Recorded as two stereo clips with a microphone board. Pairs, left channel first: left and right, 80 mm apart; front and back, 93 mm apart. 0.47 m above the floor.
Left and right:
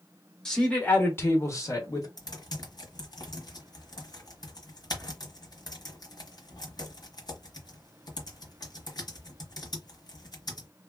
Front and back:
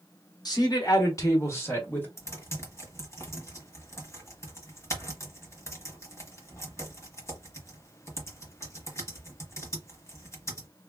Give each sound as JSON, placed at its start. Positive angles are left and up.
{"t": 0.5, "sound": "a man speaking", "azimuth_deg": 10, "distance_m": 1.4}
{"t": 2.2, "sound": "typing on a keyboard", "azimuth_deg": 60, "distance_m": 1.2}